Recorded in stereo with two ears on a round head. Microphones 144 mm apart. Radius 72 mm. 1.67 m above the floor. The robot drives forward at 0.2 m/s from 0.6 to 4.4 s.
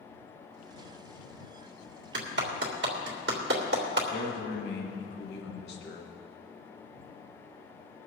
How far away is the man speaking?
About 1.9 m.